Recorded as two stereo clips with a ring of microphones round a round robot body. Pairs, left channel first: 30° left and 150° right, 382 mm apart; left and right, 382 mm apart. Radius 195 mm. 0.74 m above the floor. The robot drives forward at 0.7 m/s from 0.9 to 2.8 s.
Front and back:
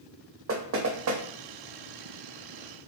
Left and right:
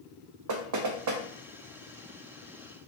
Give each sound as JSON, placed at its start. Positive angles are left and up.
{"t": 0.5, "sound": "knocking", "azimuth_deg": -105, "distance_m": 0.8}